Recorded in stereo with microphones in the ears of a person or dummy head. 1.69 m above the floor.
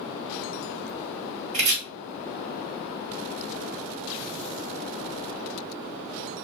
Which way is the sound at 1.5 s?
35° right (ahead or behind).